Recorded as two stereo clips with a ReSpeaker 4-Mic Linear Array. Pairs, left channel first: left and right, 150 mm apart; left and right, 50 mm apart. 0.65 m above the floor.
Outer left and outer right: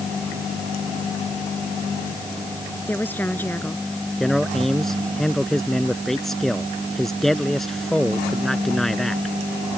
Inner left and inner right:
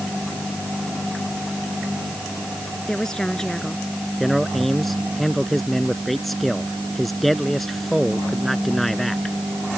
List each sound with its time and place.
2.9 s a woman speaking: 10° left (ahead or behind)
4.2 s a man speaking: centre (ahead or behind)